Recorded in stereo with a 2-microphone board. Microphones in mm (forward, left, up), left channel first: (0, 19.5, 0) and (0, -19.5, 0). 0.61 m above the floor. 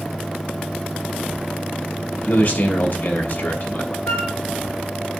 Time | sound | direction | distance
2.2 | a man speaking | 55° left (ahead or behind) | 4 m
4.1 | a flute | 70° left (ahead or behind) | 3 m